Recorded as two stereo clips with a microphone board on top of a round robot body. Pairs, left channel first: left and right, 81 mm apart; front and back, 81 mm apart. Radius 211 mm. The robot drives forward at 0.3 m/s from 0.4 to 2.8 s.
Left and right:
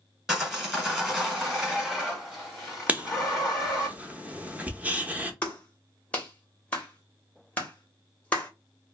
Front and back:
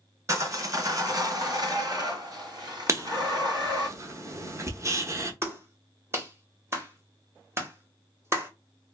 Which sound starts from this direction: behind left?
A clap, at 5.4 s.